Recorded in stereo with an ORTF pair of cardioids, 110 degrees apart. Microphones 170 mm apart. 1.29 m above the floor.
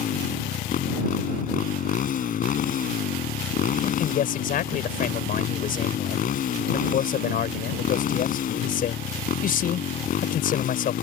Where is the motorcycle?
55° left.